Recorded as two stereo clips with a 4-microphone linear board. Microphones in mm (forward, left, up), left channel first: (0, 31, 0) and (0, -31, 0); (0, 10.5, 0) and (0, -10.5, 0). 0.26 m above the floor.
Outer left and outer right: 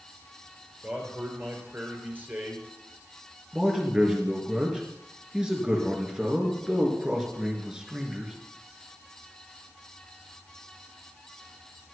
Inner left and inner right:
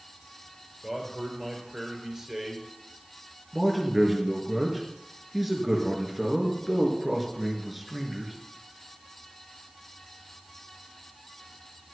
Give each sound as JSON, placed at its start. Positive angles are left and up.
{"t": 0.8, "sound": "a man speaking", "side_deg": -30, "distance_m": 5.0}
{"t": 3.5, "sound": "a man speaking", "side_deg": -10, "distance_m": 4.0}